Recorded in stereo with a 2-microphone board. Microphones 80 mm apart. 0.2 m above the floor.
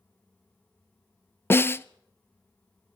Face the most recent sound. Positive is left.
turn(degrees=30)  # may be behind; listen again after turning